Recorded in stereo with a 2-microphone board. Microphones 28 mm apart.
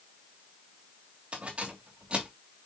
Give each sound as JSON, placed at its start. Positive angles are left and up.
{"t": 1.3, "sound": "keys jangling", "side_deg": -45, "distance_m": 2.5}